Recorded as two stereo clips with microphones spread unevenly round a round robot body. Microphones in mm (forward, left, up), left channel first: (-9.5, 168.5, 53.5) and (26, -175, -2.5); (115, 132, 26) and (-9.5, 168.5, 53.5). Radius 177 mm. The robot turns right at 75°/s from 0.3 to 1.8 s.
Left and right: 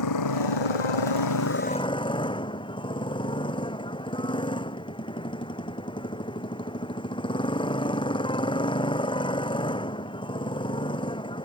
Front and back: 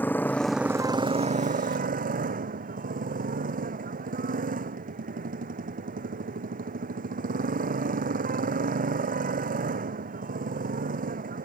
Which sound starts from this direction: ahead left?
A motorcycle, at 0.0 s.